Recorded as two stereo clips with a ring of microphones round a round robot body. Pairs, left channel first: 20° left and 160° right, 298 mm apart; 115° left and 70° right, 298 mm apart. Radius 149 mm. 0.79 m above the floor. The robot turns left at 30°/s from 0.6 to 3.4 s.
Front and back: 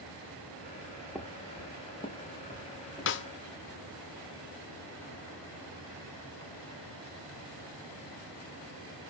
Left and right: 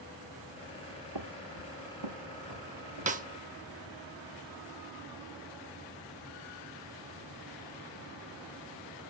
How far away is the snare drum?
About 0.6 m.